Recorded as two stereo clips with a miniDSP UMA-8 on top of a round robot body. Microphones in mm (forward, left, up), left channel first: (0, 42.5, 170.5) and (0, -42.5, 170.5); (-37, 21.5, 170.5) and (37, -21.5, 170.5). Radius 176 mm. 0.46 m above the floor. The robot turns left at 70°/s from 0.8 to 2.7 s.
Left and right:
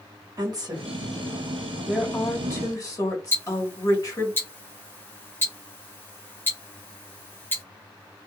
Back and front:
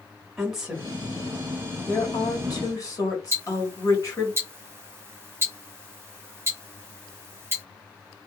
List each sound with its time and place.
0.4 s a woman speaking: 115° right, 1.6 m; by 4.3 s 115° left, 1.6 m
3.3 s ticking: 30° left, 1.1 m